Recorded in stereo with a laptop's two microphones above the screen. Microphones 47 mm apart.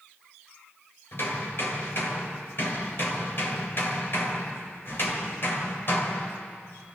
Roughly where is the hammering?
Left.